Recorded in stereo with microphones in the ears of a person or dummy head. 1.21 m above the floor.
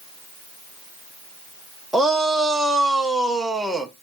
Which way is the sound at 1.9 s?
5° right (ahead or behind).